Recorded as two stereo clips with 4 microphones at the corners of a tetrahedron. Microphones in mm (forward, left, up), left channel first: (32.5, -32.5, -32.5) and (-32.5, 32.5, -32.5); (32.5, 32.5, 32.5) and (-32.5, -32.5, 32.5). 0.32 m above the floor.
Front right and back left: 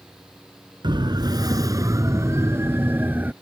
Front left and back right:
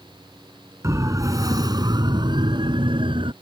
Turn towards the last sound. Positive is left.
turn(degrees=-155)